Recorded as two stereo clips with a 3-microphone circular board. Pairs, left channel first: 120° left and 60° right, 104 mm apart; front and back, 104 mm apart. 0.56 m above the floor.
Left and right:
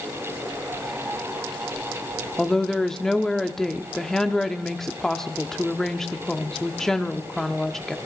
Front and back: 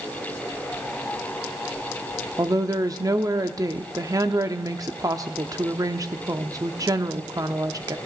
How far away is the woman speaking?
About 0.8 m.